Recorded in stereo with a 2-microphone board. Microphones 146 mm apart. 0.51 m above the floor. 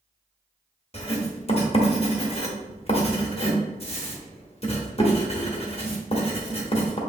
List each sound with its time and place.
0.9 s writing: 40° left (ahead or behind), 1.1 m